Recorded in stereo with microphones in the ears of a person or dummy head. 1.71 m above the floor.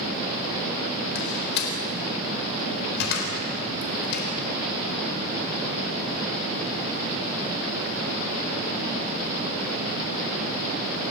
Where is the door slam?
65° left (ahead or behind), 4 m.